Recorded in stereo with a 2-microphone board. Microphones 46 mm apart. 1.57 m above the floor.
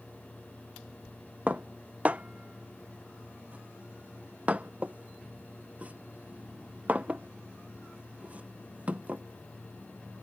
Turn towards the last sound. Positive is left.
turn(degrees=-35)  # may be behind; listen again after turning